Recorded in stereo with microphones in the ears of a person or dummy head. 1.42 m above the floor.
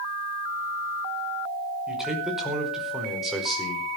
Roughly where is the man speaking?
Centre.